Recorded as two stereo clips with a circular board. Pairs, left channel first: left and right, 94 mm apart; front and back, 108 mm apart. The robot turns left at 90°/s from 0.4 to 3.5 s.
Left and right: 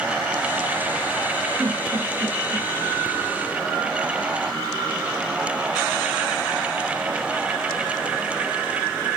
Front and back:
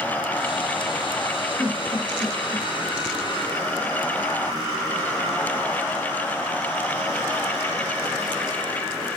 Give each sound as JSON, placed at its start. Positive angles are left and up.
{"t": 1.6, "sound": "a giggle", "azimuth_deg": -90, "distance_m": 1.4}